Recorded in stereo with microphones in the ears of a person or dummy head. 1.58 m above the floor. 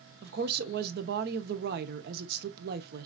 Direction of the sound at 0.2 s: 50° right (ahead or behind).